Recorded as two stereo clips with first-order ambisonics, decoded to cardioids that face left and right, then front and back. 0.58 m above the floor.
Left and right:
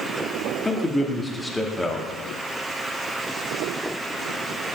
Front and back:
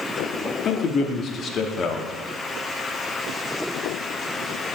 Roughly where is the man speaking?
Ahead.